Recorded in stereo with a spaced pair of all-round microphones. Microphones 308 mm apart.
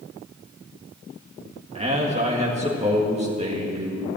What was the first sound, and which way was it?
A man speaking, 20° right (ahead or behind).